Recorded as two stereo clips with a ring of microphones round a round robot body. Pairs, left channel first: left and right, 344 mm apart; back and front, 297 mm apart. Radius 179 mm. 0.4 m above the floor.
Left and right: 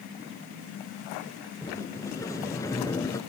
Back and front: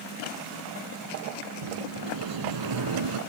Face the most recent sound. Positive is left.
turn(degrees=10)